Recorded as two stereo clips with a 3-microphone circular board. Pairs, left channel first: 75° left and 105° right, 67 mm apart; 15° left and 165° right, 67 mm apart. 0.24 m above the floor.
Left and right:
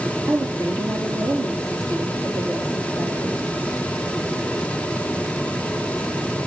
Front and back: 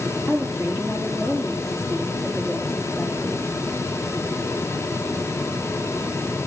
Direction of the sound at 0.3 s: 80° right.